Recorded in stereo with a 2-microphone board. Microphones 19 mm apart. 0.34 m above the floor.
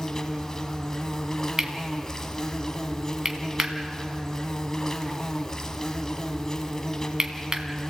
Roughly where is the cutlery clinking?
Right.